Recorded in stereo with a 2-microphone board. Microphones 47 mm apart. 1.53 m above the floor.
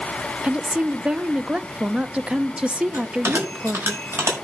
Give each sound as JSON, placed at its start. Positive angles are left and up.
{"t": 0.4, "sound": "a woman speaking", "side_deg": -25, "distance_m": 0.7}
{"t": 2.9, "sound": "a bell", "side_deg": -80, "distance_m": 7.0}